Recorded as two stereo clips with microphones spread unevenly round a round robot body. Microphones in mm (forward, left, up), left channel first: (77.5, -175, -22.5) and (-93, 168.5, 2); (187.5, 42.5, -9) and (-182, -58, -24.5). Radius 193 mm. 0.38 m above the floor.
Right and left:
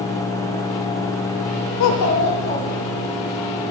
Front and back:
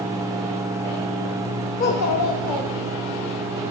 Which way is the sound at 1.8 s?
50° right.